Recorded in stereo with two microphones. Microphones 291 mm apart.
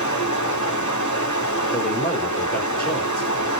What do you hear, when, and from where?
0.0 s running water: 80° left, 1.2 m
1.7 s a man speaking: 30° left (ahead or behind), 2.5 m